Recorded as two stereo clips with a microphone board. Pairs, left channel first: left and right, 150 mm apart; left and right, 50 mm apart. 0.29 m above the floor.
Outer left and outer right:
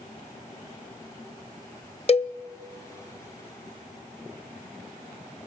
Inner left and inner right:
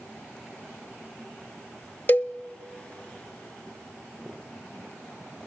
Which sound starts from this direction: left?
A cowbell, at 2.1 s.